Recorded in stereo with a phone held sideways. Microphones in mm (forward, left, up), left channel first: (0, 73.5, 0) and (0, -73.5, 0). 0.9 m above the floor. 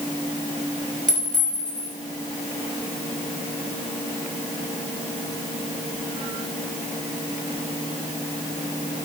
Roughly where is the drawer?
No drawer in this recording.